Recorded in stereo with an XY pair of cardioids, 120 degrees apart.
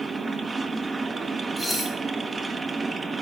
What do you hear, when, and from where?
0.0 s a machine running: 20° right, 1.2 m
1.6 s dishes clattering: straight ahead, 5 m